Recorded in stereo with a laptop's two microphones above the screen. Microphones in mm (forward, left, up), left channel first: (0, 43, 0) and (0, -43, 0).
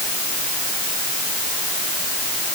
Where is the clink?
No clink in this recording.